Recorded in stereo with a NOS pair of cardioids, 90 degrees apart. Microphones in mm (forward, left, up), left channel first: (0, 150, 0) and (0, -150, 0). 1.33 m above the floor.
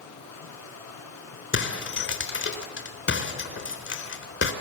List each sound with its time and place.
0.0 s running water: 65° left, 7 m
1.5 s breaking glass: 45° left, 4 m